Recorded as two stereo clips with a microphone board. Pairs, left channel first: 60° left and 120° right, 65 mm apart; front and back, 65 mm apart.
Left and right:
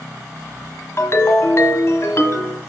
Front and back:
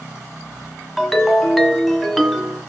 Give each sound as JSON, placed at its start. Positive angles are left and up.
{"t": 1.0, "sound": "a ringtone", "azimuth_deg": 90, "distance_m": 1.2}